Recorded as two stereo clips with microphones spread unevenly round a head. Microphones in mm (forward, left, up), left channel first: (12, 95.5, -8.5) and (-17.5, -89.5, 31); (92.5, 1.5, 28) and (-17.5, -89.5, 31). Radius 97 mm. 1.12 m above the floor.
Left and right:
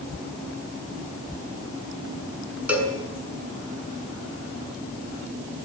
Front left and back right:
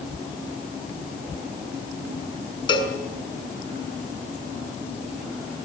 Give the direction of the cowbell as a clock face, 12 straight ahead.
1 o'clock.